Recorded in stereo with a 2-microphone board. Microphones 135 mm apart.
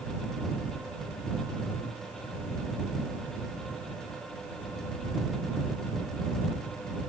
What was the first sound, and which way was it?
Only background noise.